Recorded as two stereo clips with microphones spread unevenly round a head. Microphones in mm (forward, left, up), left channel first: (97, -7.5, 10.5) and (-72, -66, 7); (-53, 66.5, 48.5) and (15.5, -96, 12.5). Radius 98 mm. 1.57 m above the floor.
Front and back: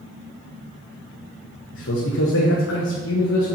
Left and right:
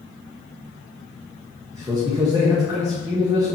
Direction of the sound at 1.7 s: 5° left.